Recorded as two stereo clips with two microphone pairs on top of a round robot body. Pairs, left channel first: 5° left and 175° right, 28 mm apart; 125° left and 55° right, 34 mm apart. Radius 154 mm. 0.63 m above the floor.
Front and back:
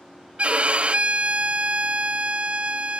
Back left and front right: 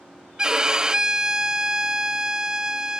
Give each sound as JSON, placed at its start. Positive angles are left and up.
{"t": 0.4, "sound": "a violin", "azimuth_deg": -135}